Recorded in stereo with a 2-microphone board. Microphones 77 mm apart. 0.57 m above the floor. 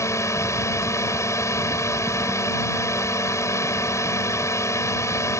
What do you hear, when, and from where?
0.0 s a drone: 40° left (ahead or behind)